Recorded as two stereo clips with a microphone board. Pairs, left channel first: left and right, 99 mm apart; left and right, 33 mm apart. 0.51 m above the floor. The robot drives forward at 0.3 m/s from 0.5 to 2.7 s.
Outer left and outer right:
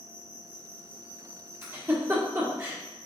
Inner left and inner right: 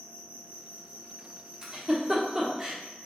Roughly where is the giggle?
Right.